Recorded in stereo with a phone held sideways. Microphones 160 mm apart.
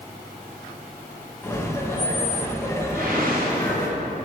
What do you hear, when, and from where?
1.4 s laughter: 15° left (ahead or behind), 1.2 m
2.9 s a whoosh: 70° right (ahead or behind), 2.5 m